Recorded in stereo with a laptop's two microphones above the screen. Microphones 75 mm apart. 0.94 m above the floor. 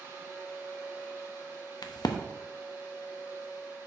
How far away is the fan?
About 3.5 m.